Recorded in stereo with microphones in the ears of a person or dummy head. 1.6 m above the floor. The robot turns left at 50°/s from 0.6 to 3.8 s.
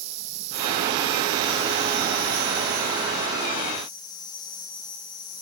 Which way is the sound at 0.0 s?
35° right.